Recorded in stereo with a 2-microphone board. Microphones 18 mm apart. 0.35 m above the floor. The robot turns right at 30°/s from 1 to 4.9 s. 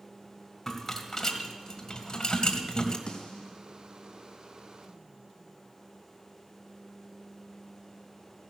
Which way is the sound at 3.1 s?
65° left (ahead or behind).